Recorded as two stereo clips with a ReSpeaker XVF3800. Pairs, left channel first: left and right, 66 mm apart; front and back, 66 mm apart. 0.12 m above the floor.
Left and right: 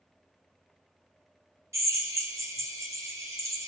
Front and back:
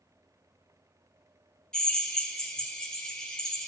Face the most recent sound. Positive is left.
turn(degrees=-75)